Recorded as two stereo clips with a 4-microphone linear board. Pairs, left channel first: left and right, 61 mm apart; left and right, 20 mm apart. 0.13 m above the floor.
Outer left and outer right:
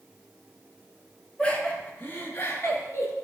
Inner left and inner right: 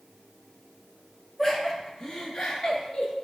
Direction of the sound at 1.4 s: 20° left (ahead or behind).